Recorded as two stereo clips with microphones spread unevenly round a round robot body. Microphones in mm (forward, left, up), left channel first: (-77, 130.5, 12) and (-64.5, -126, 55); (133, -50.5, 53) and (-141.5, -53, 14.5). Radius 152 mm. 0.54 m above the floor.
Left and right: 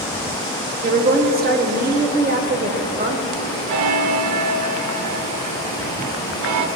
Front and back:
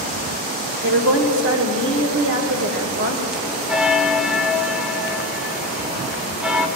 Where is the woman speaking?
145° right, 2 m.